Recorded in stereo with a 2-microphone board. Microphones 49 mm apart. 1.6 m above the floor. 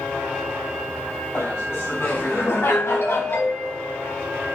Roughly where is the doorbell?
Left.